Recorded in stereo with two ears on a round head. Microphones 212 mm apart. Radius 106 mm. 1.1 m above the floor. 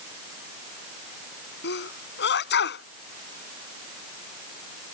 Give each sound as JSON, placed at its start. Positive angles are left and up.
{"t": 1.6, "sound": "a sneeze", "side_deg": 45}